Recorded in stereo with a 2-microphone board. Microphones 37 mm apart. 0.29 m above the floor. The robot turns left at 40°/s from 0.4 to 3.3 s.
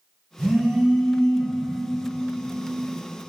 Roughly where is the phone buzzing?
Behind right.